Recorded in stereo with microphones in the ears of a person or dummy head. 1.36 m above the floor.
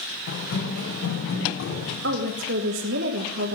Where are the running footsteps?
75° left (ahead or behind), 4.5 m; by 1.9 s 65° left (ahead or behind), 4.5 m.